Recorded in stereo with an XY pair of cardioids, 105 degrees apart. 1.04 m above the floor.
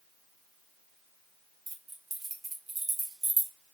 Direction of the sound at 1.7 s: 30° right.